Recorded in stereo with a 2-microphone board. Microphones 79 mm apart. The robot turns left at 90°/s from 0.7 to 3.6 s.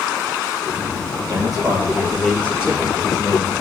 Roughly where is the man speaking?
Right.